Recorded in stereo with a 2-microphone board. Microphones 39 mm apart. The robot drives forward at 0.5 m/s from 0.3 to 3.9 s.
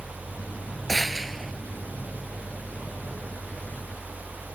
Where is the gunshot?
5° left (ahead or behind); by 1.5 s centre (ahead or behind).